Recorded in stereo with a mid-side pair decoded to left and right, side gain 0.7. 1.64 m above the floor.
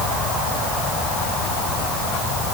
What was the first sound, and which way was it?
Only background noise.